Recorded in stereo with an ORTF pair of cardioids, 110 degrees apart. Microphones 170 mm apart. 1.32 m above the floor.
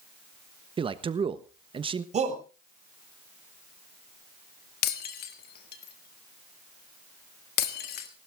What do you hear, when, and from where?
0.8 s a man speaking: 30° right, 1.2 m
2.1 s a shout: 40° right, 5.5 m
4.8 s breaking glass: 65° left, 1.8 m